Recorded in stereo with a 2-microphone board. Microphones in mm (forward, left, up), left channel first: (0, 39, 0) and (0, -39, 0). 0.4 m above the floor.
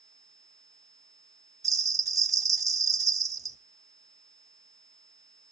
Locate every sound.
1.6 s a bell: 45° right (ahead or behind), 0.7 m